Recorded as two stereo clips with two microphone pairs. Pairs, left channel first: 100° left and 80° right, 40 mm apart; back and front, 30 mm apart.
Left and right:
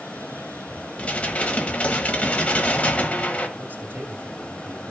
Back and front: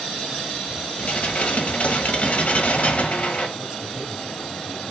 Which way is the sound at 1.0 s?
155° left.